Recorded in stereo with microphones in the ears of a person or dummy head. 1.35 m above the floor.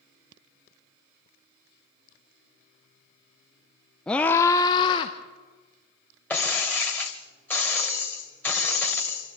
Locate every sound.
4.1 s a scream: 5° left (ahead or behind), 0.6 m; by 5.1 s 35° left (ahead or behind), 1.0 m
6.3 s breaking glass: 10° left (ahead or behind), 2.5 m